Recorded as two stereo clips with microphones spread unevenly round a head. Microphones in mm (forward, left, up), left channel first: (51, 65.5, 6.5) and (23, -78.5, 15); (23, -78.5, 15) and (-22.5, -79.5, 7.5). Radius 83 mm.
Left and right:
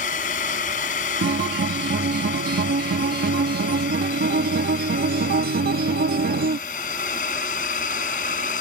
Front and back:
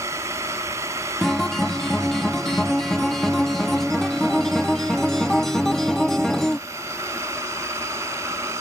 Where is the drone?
130° left; by 8.6 s 125° left.